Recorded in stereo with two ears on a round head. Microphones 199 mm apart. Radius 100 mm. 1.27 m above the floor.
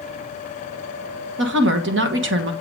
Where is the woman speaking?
55° right (ahead or behind), 1.5 m.